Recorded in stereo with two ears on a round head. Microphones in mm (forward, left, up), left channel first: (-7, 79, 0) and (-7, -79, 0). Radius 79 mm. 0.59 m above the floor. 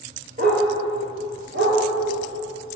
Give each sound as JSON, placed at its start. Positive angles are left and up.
{"t": 0.4, "sound": "a dog barking", "side_deg": -45, "distance_m": 4.0}